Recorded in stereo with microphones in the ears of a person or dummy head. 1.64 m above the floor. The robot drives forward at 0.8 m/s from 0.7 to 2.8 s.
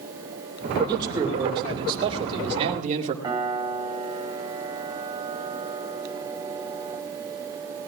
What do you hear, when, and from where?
0.9 s a man speaking: 20° right (ahead or behind), 3.5 m; by 3.1 s 40° right (ahead or behind), 2.0 m
3.2 s a piano: 20° right (ahead or behind), 3.5 m